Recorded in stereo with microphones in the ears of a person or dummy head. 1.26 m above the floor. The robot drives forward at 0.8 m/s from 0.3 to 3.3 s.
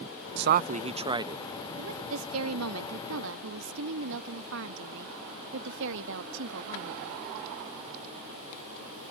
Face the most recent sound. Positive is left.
turn(degrees=-75)  # may be behind; listen again after turning